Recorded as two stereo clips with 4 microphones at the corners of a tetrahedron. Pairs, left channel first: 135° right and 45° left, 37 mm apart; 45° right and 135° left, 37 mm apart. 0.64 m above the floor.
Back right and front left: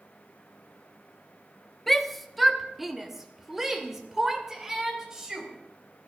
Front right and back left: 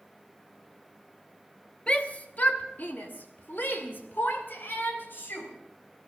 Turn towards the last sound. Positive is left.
turn(degrees=-30)